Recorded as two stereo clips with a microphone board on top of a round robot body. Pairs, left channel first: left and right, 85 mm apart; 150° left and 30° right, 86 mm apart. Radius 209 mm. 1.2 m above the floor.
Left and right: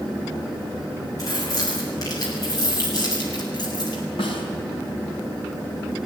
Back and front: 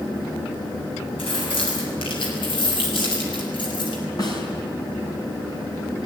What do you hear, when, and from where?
1.2 s keys jangling: 140° left, 7.5 m; by 4.0 s 130° left, 6 m
4.2 s a snare drum: 105° left, 5 m